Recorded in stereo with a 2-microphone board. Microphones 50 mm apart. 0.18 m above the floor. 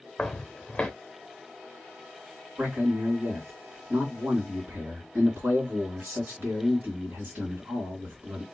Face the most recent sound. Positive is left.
turn(degrees=-50)  # may be behind; listen again after turning